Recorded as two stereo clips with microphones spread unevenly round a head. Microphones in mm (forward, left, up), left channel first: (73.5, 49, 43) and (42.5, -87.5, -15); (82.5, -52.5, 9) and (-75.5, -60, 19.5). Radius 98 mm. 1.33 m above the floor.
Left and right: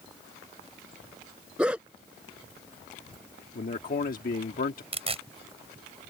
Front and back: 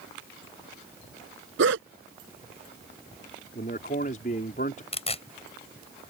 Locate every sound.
1.6 s a dog barking: 170° left
3.5 s a man speaking: 55° left
4.9 s tearing paper: 50° right